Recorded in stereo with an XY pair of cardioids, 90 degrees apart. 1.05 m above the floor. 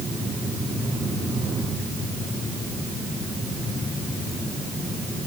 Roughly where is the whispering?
I don't hear whispering.